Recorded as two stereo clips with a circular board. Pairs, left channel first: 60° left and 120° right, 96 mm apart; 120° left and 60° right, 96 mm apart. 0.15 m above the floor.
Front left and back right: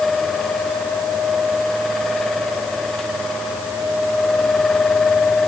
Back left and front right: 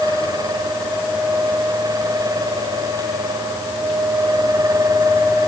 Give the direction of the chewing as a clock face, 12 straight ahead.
No chewing in this recording.